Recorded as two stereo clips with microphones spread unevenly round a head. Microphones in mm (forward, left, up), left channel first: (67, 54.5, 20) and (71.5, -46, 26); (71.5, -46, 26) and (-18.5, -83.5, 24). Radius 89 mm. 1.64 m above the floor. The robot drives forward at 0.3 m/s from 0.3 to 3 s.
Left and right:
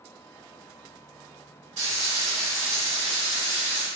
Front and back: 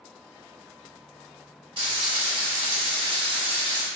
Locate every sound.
1.8 s frying: 125° right, 1.6 m; by 3.9 s 135° right, 1.8 m